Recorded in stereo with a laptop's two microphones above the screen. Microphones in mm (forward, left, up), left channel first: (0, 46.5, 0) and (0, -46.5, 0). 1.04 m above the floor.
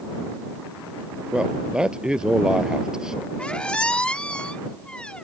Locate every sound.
1.3 s a man speaking: 10° right (ahead or behind); by 3.3 s 5° right (ahead or behind)
3.4 s a squeak: 10° left (ahead or behind)